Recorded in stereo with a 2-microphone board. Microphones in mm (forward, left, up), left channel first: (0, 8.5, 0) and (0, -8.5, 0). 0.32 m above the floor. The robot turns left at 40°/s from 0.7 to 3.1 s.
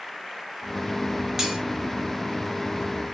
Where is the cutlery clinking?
30° right (ahead or behind), 3.5 m; by 1.6 s 40° right (ahead or behind), 3.5 m.